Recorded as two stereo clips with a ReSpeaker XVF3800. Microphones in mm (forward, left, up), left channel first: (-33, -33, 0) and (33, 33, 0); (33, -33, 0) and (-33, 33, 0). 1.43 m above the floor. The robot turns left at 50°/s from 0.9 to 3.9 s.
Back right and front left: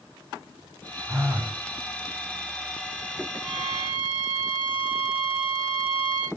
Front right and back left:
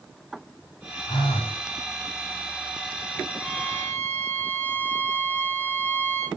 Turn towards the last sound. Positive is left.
turn(degrees=-160)